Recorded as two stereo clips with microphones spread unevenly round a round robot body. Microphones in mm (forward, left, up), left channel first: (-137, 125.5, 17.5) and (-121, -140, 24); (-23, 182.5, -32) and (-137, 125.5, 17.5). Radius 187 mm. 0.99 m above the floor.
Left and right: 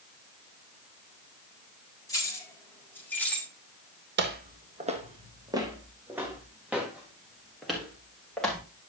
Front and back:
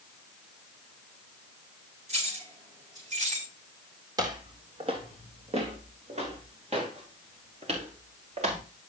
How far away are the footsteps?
About 1.6 m.